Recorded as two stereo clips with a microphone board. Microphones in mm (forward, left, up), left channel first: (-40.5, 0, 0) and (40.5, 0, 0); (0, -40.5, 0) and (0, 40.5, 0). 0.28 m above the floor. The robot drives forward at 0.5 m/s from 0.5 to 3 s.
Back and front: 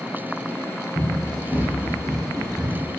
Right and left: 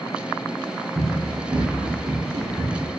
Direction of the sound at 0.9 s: 130° left.